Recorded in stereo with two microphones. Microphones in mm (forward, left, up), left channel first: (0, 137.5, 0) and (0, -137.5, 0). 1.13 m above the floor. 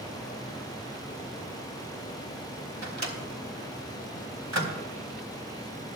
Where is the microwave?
75° right (ahead or behind), 2 m.